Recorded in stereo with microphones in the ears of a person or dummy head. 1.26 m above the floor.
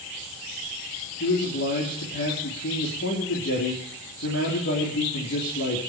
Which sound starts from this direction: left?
A man speaking, at 1.2 s.